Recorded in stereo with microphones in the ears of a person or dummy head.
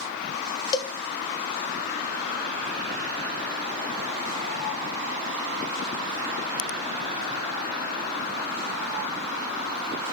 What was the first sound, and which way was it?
A cowbell, 25° left (ahead or behind).